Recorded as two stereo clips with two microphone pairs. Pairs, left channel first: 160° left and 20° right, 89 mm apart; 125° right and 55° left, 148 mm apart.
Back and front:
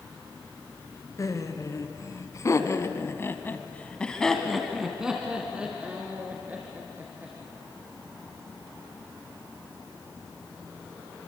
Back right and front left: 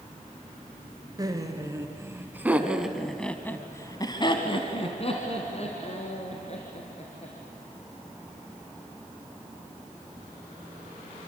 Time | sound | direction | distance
1.2 | laughter | 115° left | 3 m